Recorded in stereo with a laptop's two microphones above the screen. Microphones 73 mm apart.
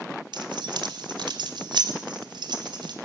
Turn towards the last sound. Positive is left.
turn(degrees=-85)